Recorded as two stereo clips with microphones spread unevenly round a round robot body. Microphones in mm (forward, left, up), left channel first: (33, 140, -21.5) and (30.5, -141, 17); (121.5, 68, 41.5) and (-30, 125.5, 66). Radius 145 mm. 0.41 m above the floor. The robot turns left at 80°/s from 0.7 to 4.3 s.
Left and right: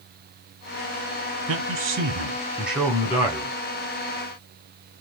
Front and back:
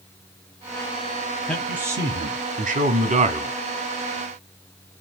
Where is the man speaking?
90° right, 1.2 m; by 3.5 s 105° left, 1.2 m.